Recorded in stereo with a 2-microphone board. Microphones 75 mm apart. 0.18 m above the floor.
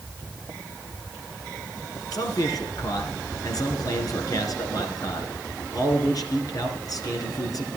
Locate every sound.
2.1 s a man speaking: 55° left (ahead or behind), 2.5 m